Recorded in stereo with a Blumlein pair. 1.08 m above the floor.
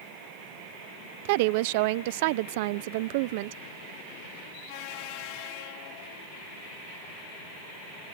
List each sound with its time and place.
1.2 s a woman speaking: 50° right, 0.5 m